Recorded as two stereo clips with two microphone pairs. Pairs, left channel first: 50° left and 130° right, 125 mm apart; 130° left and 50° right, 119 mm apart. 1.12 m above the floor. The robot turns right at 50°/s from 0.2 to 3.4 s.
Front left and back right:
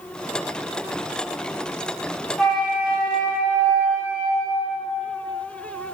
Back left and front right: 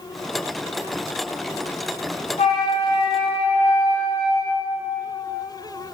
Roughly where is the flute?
Behind left.